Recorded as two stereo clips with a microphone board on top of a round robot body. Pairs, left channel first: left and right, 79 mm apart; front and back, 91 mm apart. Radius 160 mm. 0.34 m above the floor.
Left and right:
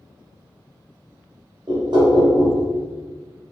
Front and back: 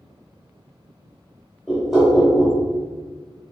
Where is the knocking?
95° right, 1.4 m.